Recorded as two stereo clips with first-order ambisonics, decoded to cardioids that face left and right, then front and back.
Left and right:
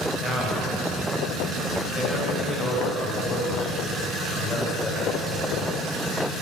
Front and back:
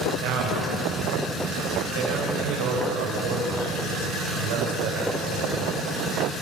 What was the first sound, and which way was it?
A man speaking, 175° left.